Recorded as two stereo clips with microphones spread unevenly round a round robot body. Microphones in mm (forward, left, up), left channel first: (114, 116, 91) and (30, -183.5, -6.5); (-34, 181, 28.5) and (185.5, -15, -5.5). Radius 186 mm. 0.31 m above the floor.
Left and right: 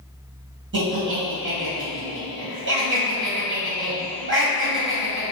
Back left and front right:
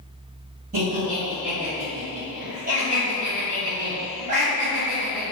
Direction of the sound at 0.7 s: 95° right.